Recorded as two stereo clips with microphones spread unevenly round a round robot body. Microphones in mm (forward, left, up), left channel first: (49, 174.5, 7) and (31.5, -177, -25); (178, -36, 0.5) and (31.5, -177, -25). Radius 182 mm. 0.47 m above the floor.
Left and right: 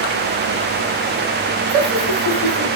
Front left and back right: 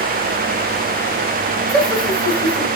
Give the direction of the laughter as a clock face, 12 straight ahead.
2 o'clock.